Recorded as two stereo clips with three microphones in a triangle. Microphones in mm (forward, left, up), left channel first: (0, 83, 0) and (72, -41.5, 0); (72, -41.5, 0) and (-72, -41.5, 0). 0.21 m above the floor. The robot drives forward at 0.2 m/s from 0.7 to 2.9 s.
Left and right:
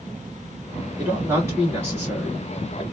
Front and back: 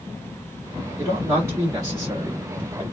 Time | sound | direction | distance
1.0 | a man speaking | 115° right | 1.4 m